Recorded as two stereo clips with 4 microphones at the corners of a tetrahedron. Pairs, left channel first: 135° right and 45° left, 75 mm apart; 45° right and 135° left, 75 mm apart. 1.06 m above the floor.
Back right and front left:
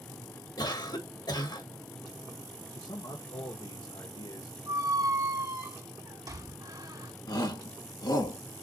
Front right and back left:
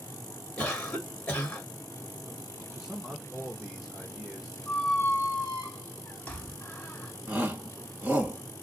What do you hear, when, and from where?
0.6 s a cough: 125° right, 2 m
2.7 s a man speaking: 140° right, 1.2 m
4.7 s a squeak: 20° left, 2 m
7.3 s a shout: 160° right, 1.7 m